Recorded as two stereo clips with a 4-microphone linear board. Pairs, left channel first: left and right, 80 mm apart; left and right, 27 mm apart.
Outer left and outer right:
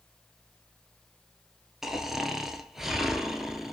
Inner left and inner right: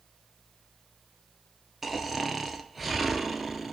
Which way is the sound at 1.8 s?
5° right (ahead or behind).